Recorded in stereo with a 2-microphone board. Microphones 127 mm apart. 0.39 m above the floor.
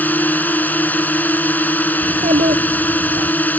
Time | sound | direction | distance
0.0 | a drone | 15° left (ahead or behind) | ?
2.0 | a child speaking | 85° right | ?